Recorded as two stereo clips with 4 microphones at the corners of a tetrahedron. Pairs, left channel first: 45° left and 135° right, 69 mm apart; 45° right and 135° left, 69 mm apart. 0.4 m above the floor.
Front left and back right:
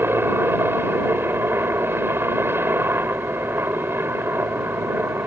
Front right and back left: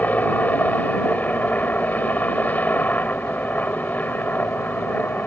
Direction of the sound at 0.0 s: 100° right.